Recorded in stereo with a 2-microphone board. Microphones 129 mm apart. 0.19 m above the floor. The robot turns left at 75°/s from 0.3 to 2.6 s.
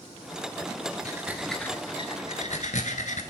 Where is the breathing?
30° right (ahead or behind), 0.9 m; by 3.2 s 70° left (ahead or behind), 0.9 m.